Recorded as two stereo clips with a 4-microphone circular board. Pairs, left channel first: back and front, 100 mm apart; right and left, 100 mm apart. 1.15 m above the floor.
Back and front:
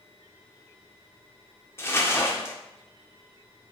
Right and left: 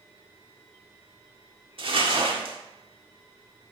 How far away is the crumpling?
About 1.7 m.